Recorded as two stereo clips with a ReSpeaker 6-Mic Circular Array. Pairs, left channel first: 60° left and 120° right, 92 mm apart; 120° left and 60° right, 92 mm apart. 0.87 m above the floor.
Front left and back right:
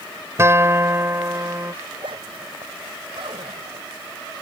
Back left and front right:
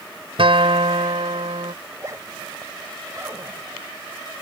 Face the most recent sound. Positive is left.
turn(degrees=-115)